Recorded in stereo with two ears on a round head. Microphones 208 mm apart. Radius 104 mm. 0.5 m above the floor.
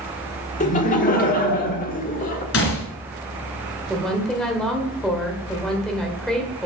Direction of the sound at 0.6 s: 35° left (ahead or behind).